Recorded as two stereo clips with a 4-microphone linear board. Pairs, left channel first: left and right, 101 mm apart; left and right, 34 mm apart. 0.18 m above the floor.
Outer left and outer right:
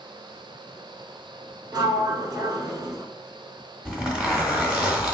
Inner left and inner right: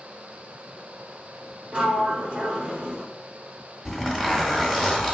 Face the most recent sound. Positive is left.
turn(degrees=-5)  # may be behind; listen again after turning